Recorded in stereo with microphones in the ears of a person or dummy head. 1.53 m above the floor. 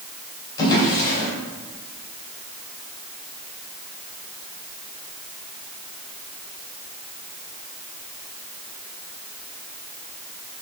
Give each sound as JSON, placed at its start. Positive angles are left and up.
{"t": 0.6, "sound": "a drawer", "side_deg": 20, "distance_m": 3.0}